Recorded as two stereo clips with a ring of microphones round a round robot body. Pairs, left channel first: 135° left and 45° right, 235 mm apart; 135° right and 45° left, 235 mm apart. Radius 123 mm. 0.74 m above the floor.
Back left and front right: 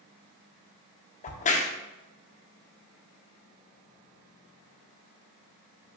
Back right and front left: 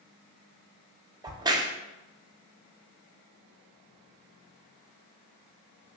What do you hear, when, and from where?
1.2 s a crack: 105° left, 0.6 m